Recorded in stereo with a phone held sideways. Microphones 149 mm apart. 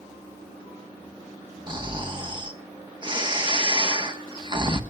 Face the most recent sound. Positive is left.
turn(degrees=-30)  # may be behind; listen again after turning